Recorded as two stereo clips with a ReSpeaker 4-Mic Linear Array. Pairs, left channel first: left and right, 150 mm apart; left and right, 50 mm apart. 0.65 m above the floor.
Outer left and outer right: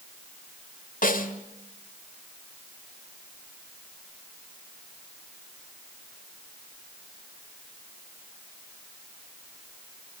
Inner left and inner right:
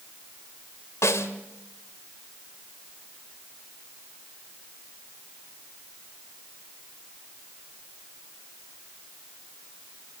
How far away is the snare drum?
About 1.9 m.